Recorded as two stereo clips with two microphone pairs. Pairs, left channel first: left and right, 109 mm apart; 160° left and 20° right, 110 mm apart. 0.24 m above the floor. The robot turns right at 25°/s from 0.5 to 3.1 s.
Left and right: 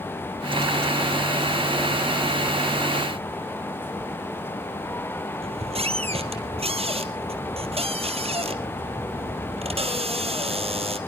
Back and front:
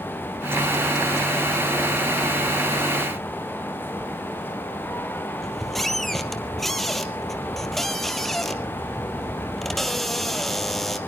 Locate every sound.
5.4 s a squeak: 115° right, 2.0 m